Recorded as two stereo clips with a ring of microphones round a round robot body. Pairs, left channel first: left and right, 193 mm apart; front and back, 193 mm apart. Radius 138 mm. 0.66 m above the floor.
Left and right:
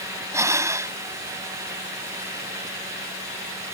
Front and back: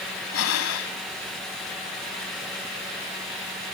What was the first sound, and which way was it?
Breathing, 15° right.